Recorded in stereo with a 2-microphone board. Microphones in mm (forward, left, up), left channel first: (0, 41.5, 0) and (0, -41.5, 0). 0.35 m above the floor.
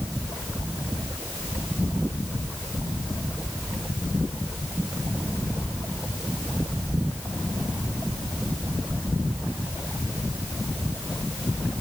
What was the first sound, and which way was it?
Only background noise.